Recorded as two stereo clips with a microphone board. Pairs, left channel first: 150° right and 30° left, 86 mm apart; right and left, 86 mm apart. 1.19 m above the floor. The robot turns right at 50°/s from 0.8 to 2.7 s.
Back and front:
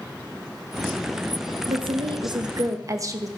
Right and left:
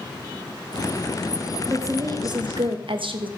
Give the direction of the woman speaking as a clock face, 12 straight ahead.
11 o'clock.